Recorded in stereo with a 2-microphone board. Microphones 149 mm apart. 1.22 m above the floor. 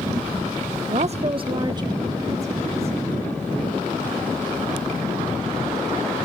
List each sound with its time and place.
0.9 s a woman speaking: 55° right (ahead or behind), 0.7 m; by 3.1 s 20° right (ahead or behind), 3 m